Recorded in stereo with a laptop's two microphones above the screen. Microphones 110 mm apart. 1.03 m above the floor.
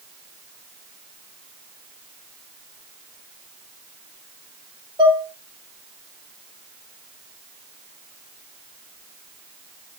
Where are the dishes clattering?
40° right (ahead or behind), 1.3 m.